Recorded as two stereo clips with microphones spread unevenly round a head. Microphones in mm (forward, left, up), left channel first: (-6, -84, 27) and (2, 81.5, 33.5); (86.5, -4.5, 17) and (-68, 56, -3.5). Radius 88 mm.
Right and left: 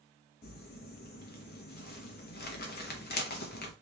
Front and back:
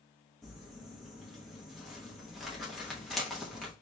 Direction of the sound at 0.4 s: 115° right.